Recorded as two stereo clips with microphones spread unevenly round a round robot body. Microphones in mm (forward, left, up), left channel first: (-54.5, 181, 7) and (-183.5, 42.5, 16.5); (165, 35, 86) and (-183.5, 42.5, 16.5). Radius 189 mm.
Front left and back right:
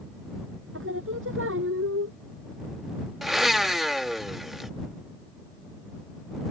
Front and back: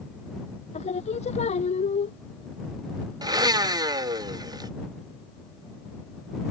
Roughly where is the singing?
Right.